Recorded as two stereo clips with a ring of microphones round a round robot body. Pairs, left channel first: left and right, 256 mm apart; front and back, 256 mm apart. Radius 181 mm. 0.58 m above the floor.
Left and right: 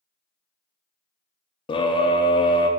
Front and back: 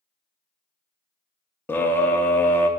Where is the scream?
70° left, 0.6 m.